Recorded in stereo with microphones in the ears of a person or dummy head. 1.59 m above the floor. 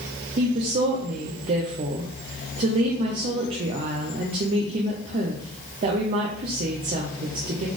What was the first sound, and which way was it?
A woman speaking, 30° right (ahead or behind).